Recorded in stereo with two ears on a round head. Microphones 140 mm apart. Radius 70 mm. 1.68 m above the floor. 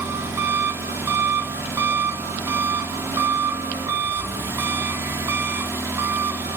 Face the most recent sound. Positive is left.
turn(degrees=-15)  # may be behind; listen again after turning